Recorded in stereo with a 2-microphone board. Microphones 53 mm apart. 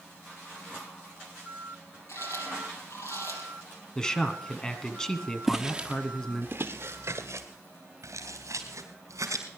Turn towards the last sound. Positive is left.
turn(degrees=-85)